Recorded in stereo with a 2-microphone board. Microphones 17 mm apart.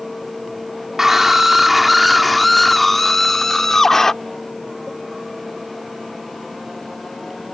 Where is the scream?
20° right (ahead or behind); by 4.1 s 30° left (ahead or behind).